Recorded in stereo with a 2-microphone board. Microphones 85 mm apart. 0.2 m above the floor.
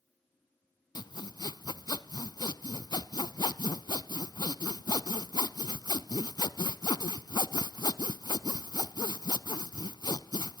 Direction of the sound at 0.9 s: 55° left (ahead or behind).